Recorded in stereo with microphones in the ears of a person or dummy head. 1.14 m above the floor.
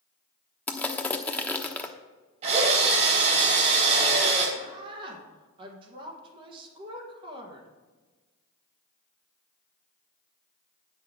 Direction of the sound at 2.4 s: 40° right (ahead or behind).